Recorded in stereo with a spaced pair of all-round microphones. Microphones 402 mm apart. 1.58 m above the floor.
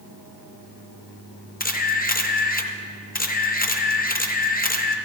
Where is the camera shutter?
25° left (ahead or behind), 0.5 m.